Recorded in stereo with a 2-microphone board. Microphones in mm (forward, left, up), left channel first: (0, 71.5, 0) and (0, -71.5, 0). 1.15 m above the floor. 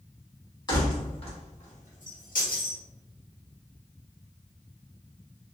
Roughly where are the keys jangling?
Left.